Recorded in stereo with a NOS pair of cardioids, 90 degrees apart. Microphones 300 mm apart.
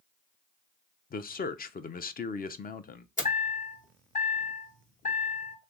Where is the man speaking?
30° left, 0.6 m.